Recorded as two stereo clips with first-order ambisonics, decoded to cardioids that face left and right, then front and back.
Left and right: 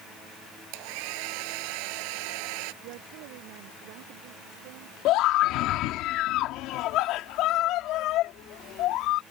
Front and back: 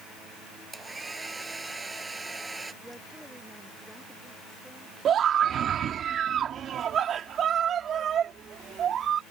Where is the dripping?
I don't hear dripping.